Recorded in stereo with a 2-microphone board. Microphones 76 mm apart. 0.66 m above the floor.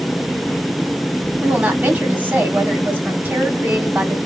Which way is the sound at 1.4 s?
25° right (ahead or behind).